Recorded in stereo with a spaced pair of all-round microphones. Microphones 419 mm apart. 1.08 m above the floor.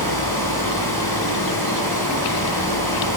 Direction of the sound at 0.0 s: 60° left (ahead or behind).